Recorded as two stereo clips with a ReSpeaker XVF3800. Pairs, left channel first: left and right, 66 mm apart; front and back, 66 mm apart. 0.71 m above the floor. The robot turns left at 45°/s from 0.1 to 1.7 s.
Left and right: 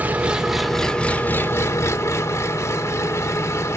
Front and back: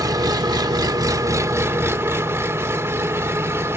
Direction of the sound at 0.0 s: 155° right.